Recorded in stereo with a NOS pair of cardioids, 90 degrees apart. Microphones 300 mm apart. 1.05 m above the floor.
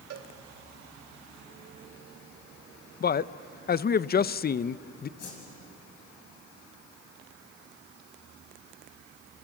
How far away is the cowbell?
About 2 m.